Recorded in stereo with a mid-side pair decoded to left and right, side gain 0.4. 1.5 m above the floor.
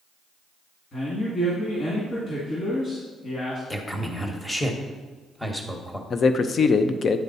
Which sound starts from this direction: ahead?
A man speaking, at 3.7 s.